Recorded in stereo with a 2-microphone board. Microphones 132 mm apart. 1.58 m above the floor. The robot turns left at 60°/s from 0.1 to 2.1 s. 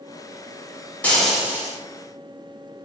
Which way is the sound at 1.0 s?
15° left.